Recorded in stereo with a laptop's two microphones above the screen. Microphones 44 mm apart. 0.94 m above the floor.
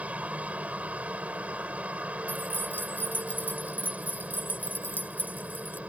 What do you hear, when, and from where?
0.0 s a helicopter: 30° right (ahead or behind)
2.3 s keys jangling: 45° left (ahead or behind)